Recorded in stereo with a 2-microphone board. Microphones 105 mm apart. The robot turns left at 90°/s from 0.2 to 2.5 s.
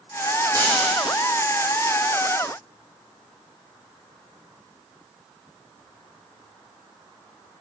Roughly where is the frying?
Ahead right.